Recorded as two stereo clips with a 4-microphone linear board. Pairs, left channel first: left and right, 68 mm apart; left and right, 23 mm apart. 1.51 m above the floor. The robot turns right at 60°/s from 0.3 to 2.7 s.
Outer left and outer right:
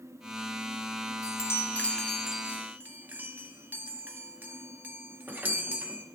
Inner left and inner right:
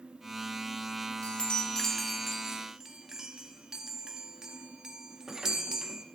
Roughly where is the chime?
Behind left.